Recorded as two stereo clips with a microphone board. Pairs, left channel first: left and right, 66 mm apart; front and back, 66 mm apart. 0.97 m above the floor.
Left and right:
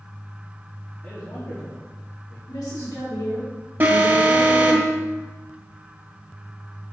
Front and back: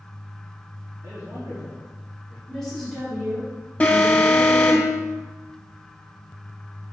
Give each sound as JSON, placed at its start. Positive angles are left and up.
{"t": 1.0, "sound": "a man speaking", "azimuth_deg": 140, "distance_m": 1.8}
{"t": 2.5, "sound": "a woman speaking", "azimuth_deg": 85, "distance_m": 4.0}
{"t": 3.8, "sound": "an alarm", "azimuth_deg": -55, "distance_m": 1.6}